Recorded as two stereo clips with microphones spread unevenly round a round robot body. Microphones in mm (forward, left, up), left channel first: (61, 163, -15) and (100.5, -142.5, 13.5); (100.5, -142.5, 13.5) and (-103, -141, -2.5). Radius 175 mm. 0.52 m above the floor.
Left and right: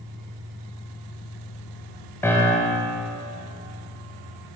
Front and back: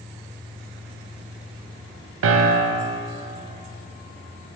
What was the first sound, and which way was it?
A piano, straight behind.